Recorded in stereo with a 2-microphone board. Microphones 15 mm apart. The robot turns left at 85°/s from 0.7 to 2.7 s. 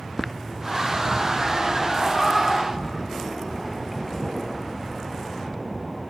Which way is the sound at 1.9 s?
45° left (ahead or behind).